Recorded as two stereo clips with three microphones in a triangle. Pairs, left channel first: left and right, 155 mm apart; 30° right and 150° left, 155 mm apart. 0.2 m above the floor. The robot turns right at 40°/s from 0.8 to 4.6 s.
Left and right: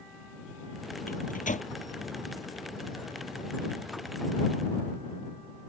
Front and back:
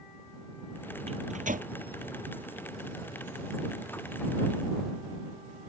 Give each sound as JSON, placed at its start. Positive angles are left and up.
{"t": 1.1, "sound": "a microwave", "azimuth_deg": 105}